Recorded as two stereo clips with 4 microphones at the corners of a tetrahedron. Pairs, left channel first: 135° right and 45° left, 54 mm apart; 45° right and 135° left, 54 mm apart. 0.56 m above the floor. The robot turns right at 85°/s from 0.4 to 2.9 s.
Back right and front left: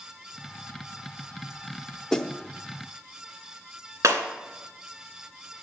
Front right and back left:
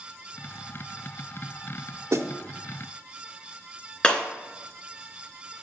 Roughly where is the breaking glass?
Ahead left.